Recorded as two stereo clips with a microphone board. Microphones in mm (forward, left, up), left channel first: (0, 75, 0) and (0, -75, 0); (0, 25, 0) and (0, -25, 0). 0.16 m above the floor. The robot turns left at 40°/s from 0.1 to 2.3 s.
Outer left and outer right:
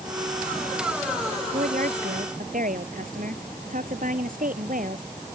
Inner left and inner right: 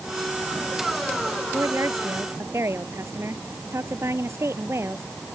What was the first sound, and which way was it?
A woman speaking, 75° right.